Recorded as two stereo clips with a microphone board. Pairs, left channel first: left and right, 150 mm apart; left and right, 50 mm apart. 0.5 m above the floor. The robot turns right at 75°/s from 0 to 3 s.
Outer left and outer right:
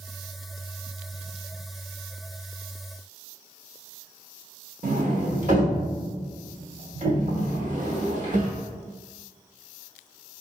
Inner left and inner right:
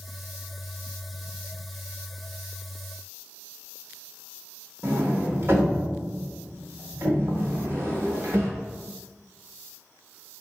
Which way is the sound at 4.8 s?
55° right (ahead or behind).